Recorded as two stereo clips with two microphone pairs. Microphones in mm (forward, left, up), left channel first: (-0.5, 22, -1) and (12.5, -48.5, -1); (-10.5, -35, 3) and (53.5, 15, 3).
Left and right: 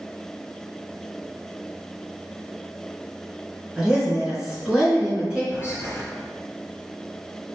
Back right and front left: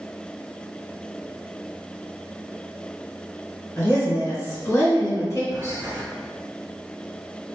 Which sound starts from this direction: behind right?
A woman speaking, at 3.8 s.